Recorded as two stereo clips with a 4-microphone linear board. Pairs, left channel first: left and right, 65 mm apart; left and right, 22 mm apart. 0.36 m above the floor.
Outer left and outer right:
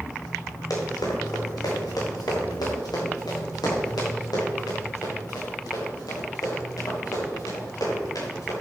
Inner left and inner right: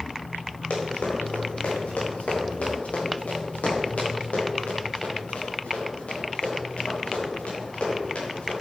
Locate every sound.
0.7 s running footsteps: 65° left (ahead or behind), 5 m; by 8.5 s 60° left (ahead or behind), 7 m